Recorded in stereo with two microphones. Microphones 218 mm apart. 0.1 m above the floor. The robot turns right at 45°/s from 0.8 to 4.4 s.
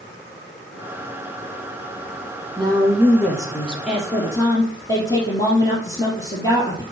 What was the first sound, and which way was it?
A woman speaking, 25° right.